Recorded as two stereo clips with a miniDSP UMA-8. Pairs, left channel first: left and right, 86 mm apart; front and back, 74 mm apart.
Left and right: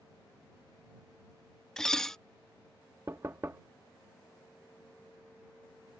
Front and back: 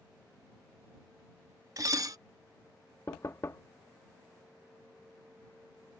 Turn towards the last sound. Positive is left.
turn(degrees=-40)